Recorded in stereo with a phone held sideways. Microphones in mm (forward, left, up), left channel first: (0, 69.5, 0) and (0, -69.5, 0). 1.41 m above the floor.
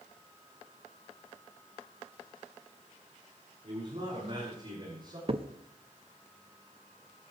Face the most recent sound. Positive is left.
turn(degrees=-45)  # may be behind; listen again after turning